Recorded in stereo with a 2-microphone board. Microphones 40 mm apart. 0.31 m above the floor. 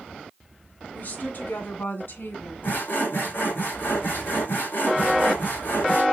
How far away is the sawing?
About 3.5 m.